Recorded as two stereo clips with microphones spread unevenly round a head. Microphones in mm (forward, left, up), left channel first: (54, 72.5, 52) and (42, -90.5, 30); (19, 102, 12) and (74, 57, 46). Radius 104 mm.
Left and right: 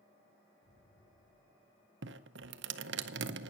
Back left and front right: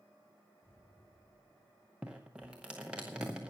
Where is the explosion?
80° left, 4.5 m.